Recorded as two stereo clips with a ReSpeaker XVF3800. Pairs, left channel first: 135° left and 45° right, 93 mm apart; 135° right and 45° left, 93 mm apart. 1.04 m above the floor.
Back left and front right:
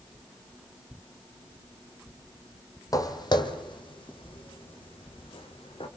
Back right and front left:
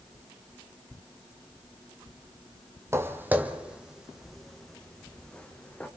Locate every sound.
2.9 s footsteps: 100° left, 1.5 m; by 5.9 s 150° left, 3 m